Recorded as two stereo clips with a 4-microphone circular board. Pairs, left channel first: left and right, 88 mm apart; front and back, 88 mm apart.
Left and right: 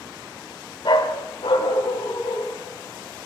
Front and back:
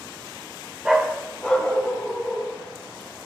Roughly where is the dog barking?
Left.